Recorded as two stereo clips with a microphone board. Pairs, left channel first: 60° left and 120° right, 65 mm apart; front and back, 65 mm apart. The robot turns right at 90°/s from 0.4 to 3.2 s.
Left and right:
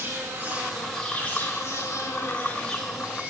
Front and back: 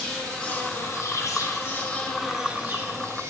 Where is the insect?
75° right, 1.6 m; by 3.3 s straight behind, 1.6 m.